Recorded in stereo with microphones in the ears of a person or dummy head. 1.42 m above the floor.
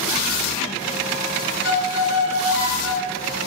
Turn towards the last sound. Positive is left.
turn(degrees=-30)  # may be behind; listen again after turning